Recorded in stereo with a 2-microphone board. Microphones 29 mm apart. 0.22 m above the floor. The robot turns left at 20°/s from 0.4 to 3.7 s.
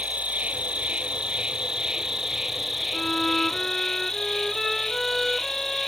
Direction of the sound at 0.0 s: 125° right.